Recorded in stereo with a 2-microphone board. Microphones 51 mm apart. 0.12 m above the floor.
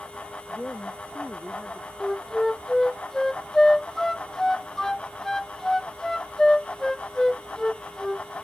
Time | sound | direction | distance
0.5 | a woman speaking | 20° left (ahead or behind) | ?
2.0 | a flute | 10° left (ahead or behind) | ?